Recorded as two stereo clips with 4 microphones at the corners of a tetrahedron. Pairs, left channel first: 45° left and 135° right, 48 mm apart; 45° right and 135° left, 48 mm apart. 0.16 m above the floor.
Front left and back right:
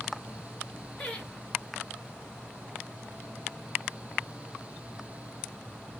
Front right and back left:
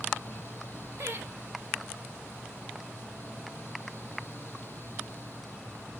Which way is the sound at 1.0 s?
120° left.